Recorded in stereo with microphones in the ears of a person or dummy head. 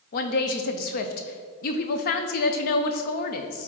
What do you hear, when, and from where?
0.1 s a woman speaking: 55° left (ahead or behind), 0.7 m